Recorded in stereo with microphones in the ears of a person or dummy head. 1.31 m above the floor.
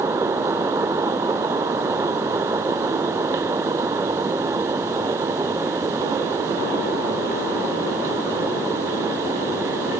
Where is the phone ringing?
I don't hear a phone ringing.